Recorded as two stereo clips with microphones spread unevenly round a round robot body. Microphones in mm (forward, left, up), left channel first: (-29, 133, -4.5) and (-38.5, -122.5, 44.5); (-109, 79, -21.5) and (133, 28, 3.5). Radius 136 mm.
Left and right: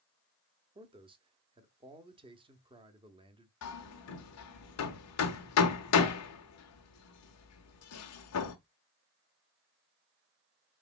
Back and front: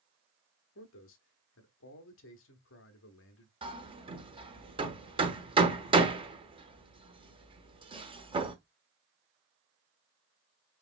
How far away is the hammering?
About 0.9 m.